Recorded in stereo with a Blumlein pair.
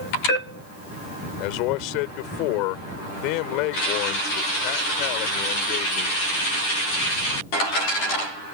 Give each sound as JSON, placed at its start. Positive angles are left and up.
{"t": 1.4, "sound": "a man speaking", "azimuth_deg": 40}